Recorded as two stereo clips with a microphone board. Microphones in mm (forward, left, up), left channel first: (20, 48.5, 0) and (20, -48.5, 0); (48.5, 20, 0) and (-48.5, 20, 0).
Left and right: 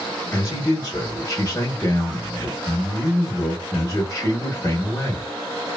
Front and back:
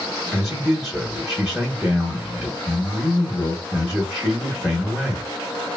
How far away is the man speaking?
About 1.0 m.